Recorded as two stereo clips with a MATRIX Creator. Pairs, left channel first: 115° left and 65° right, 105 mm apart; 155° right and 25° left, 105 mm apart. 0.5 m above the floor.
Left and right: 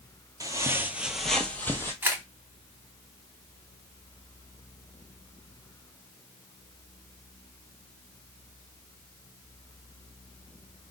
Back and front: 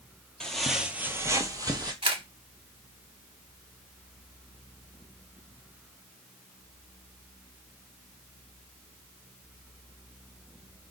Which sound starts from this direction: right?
Footsteps, at 0.4 s.